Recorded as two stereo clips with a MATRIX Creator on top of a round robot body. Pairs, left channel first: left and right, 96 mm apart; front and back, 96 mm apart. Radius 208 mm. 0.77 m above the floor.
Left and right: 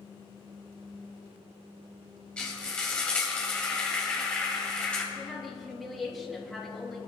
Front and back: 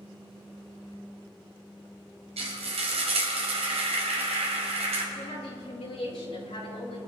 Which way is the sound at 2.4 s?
170° left.